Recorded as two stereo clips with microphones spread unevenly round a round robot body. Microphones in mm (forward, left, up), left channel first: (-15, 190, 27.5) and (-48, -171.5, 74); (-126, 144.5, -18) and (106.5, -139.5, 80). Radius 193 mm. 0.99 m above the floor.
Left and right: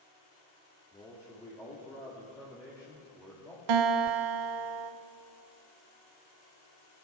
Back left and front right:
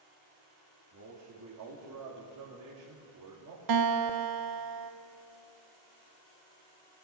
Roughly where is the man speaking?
Ahead.